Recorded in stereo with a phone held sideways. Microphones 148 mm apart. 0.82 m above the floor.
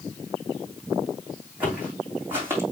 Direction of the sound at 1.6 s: 10° right (ahead or behind).